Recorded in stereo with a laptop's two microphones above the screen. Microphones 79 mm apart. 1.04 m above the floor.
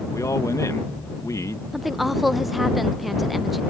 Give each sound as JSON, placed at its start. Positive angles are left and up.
{"t": 0.1, "sound": "a man speaking", "side_deg": 40}
{"t": 1.7, "sound": "a woman speaking", "side_deg": 0}